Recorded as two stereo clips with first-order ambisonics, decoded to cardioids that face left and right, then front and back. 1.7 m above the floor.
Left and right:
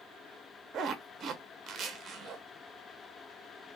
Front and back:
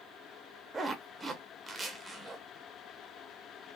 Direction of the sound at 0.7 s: 115° right.